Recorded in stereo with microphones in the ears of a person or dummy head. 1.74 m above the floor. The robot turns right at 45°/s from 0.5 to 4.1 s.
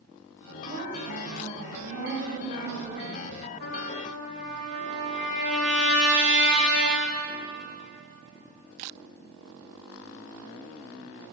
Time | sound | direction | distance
0.7 | a woman speaking | 150° right | 2.5 m
3.6 | a trumpet | 60° left (ahead or behind) | 2.5 m